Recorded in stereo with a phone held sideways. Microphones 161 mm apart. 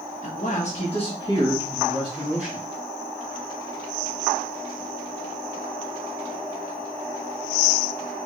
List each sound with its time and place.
0.2 s a man speaking: 50° left (ahead or behind), 1.6 m; by 2.6 s 10° right (ahead or behind), 1.9 m